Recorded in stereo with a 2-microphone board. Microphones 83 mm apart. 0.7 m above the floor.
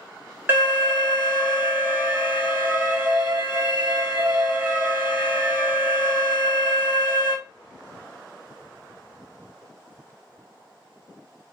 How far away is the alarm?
About 0.9 m.